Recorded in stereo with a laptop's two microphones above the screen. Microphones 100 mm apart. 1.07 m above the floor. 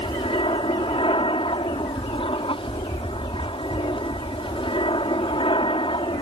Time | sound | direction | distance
0.0 | an aircraft | 60° left (ahead or behind) | ?